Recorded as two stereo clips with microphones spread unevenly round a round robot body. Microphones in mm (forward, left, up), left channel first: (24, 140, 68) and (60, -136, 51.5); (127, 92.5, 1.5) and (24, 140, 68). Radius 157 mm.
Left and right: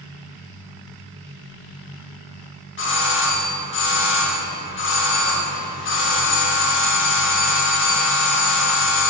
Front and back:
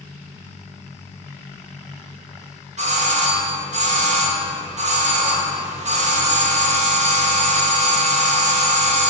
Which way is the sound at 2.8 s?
115° left.